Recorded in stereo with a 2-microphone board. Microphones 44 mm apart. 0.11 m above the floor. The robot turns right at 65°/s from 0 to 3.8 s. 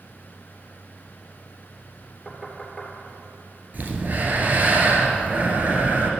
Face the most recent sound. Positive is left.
turn(degrees=-40)  # may be behind; listen again after turning